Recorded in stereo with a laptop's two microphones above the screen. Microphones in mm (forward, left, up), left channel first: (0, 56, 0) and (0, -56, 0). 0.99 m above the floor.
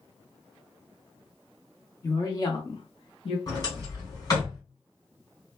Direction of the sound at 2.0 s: 30° left (ahead or behind).